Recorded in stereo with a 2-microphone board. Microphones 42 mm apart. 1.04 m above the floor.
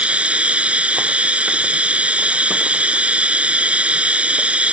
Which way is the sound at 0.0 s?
30° right (ahead or behind).